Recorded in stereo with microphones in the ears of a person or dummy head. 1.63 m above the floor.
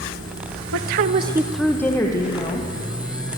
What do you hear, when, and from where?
0.7 s a woman speaking: 75° right (ahead or behind), 0.9 m; by 2.7 s 30° left (ahead or behind), 2.5 m